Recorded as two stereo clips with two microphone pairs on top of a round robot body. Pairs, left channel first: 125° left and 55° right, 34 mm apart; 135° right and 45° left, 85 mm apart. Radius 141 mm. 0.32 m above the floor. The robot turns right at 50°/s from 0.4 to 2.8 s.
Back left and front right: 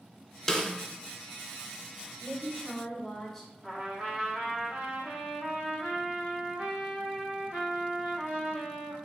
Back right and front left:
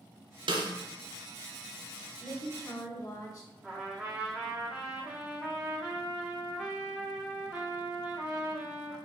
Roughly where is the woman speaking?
Behind.